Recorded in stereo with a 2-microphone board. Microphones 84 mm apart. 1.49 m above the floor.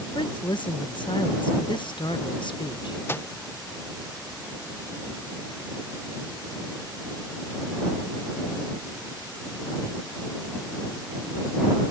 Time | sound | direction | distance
0.1 | a woman speaking | 70° left (ahead or behind) | ?
3.1 | a microwave | 25° left (ahead or behind) | ?